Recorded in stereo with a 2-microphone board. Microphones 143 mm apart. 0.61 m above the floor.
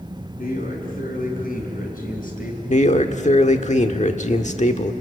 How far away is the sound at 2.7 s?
About 1.3 m.